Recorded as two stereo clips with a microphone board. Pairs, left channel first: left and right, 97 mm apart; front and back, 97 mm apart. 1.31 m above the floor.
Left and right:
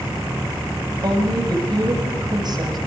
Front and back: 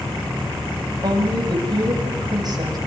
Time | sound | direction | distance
1.0 | a woman speaking | 135° right | 7.5 m